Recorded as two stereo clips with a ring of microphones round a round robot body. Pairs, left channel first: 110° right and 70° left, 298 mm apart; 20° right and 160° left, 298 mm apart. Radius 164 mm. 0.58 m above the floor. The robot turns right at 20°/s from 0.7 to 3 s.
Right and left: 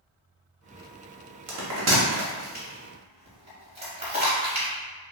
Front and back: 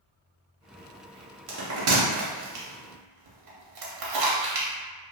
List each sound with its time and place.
1.5 s a bell: 105° left, 0.7 m; by 4.7 s 135° left, 0.7 m